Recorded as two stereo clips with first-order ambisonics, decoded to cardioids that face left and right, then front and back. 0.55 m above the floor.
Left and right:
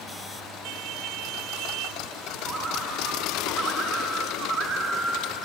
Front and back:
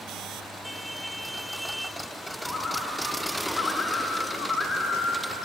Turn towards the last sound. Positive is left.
turn(degrees=-65)